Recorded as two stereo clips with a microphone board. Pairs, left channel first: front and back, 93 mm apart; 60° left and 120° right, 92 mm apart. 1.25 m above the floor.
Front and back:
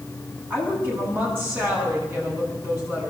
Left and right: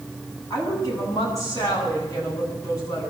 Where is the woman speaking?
115° left, 9 m.